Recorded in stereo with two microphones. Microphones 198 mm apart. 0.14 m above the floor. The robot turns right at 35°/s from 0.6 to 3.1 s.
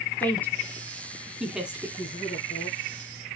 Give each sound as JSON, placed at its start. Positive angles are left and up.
{"t": 0.2, "sound": "a woman speaking", "side_deg": 10, "distance_m": 1.4}
{"t": 2.0, "sound": "a man speaking", "azimuth_deg": 100, "distance_m": 2.5}